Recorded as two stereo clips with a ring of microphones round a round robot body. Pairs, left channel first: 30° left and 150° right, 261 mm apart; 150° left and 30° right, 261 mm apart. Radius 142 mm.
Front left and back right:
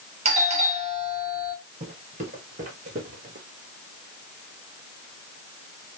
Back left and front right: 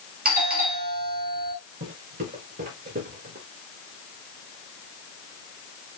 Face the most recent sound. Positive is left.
turn(degrees=-90)